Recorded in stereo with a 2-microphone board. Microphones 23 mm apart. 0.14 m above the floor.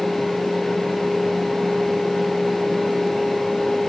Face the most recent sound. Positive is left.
No sound to turn to.